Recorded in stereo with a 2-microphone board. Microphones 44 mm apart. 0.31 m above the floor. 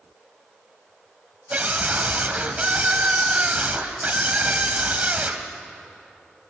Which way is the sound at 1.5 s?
35° right (ahead or behind).